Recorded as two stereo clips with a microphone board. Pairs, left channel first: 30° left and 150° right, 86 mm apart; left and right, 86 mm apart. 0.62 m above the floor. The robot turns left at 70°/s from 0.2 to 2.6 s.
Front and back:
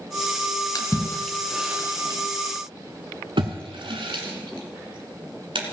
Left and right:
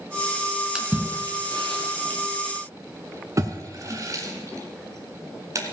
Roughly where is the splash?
Ahead.